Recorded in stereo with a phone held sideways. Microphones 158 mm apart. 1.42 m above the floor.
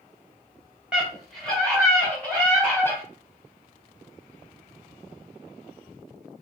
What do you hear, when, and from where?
0.9 s a scream: 5° right (ahead or behind), 1.6 m; by 3.0 s 15° left (ahead or behind), 2.5 m